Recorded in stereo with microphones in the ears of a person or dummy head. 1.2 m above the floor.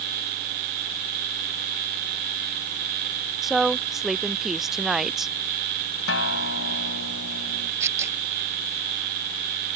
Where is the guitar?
80° left.